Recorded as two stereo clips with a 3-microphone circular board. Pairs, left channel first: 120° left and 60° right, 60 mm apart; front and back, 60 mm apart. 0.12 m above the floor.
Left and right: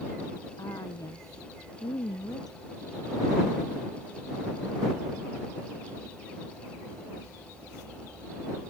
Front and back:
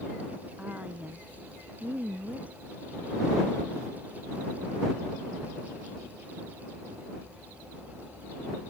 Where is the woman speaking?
115° left; by 2.6 s 110° left.